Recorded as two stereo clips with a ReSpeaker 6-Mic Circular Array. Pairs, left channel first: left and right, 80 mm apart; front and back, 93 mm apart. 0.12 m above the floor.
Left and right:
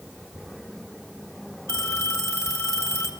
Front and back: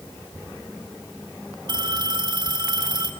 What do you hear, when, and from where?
1.7 s a phone ringing: 145° left, 1.8 m